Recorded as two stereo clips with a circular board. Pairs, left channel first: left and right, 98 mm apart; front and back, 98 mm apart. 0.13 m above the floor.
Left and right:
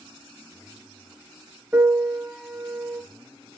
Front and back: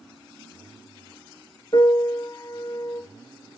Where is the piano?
25° right, 1.2 m.